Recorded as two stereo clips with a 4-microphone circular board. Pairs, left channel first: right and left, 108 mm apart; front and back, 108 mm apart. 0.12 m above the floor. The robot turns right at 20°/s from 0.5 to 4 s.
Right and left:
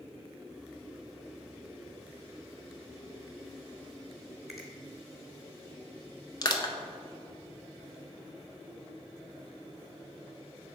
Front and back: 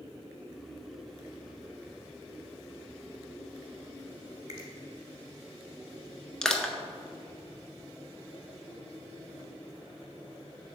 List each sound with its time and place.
4.5 s a finger snap: straight behind, 1.6 m
6.4 s crushing: 80° right, 0.6 m